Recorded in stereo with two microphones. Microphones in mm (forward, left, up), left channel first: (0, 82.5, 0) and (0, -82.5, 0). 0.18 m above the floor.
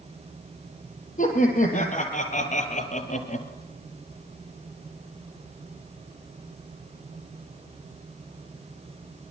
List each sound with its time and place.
1.2 s laughter: 50° left (ahead or behind), 5.5 m; by 3.5 s 45° left (ahead or behind), 3.5 m